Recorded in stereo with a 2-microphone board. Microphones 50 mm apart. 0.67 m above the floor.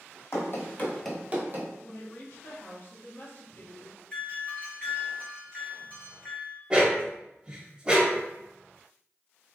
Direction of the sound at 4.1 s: 30° left (ahead or behind).